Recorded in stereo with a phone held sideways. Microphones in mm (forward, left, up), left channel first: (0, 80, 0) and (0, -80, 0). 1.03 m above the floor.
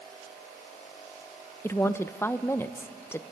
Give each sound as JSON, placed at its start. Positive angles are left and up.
{"t": 1.6, "sound": "a woman speaking", "side_deg": 15, "distance_m": 0.6}